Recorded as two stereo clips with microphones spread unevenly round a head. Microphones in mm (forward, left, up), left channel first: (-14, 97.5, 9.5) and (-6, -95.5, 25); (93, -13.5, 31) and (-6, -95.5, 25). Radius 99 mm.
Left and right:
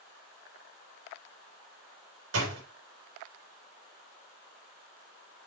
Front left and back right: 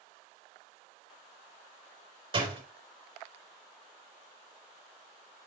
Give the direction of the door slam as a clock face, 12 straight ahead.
3 o'clock.